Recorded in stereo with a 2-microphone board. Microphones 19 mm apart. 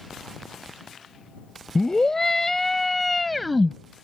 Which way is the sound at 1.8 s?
30° left (ahead or behind).